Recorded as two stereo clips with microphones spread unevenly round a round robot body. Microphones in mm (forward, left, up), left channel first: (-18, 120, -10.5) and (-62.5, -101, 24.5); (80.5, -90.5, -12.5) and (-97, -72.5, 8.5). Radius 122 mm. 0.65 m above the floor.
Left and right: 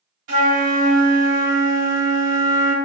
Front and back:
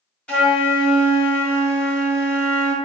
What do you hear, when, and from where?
0.3 s a flute: 90° right, 1.2 m